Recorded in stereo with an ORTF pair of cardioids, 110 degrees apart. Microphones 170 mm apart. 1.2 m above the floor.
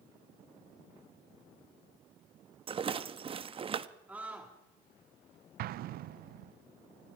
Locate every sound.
2.7 s a rattle: 35° right, 1.1 m
4.1 s a scream: 10° right, 2 m
5.6 s an explosion: 65° right, 0.6 m